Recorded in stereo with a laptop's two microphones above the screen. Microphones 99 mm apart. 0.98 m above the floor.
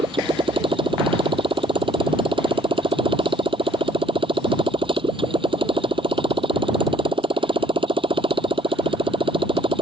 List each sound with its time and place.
0.0 s a motorcycle: 65° right (ahead or behind)